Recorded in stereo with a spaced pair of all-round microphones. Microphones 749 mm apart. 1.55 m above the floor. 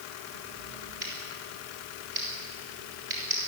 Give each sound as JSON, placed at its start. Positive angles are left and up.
{"t": 1.0, "sound": "scissors", "side_deg": -80, "distance_m": 6.5}